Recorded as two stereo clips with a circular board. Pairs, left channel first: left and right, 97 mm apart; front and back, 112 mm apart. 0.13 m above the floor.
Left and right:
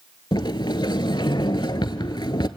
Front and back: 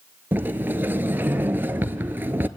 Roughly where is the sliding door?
Behind left.